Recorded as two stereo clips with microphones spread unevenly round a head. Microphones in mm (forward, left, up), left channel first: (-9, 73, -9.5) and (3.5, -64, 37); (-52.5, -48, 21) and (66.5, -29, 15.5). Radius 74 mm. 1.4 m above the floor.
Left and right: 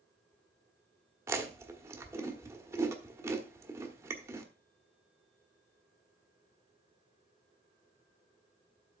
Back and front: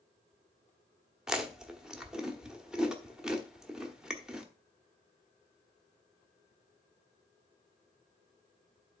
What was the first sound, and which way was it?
Chewing, 75° right.